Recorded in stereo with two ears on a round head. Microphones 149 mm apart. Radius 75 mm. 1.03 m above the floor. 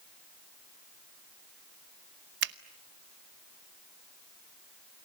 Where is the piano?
No piano in this recording.